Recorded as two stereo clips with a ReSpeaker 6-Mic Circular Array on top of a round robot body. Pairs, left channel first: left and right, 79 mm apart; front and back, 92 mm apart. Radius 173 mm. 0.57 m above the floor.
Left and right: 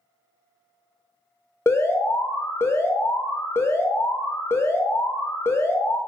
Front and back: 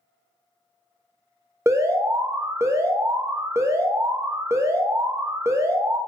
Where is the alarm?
135° left, 0.6 m.